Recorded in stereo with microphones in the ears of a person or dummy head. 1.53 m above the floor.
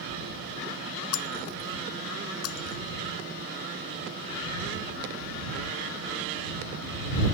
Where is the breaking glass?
80° left.